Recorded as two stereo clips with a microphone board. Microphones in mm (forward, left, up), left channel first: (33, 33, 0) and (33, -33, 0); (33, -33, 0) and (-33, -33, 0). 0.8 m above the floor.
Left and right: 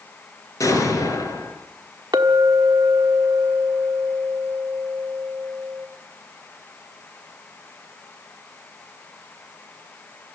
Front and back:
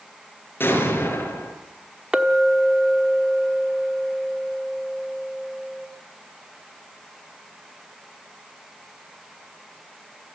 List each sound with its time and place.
0.6 s an explosion: 55° left, 5 m
2.1 s a clink: 100° right, 1.2 m